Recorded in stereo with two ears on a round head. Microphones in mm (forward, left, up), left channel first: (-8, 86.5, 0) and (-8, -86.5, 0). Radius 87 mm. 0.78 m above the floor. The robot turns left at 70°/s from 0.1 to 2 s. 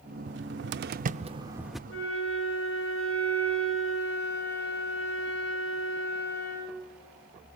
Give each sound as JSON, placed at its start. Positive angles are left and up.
{"t": 0.3, "sound": "a cupboard door", "side_deg": -60, "distance_m": 0.6}
{"t": 1.9, "sound": "a flute", "side_deg": 75, "distance_m": 5.5}